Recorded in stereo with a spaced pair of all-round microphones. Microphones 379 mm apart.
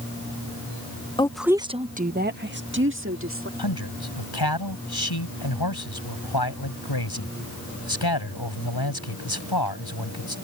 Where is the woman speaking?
15° left (ahead or behind); by 3.5 s 35° right (ahead or behind).